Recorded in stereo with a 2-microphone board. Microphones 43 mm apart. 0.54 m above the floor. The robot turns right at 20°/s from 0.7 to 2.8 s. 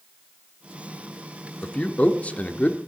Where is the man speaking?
25° left (ahead or behind), 0.9 m; by 2.8 s 40° left (ahead or behind), 0.9 m.